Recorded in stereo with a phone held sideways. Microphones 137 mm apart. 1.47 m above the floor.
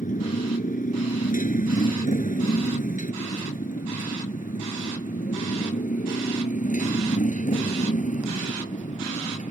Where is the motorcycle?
80° left; by 9.5 s 65° left (ahead or behind).